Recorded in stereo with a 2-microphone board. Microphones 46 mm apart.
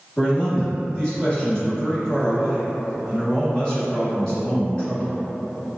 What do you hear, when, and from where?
0.2 s a man speaking: 15° left (ahead or behind), 1.2 m